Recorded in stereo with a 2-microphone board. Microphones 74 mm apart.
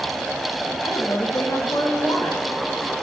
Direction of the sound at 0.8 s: 50° left (ahead or behind).